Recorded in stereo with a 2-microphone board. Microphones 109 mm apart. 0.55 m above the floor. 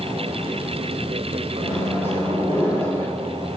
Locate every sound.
1.6 s a microwave: 20° left (ahead or behind), 1.3 m